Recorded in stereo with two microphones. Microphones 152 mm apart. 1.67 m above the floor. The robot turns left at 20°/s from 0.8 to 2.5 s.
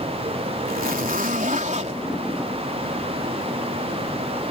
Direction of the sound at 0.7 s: 70° right (ahead or behind).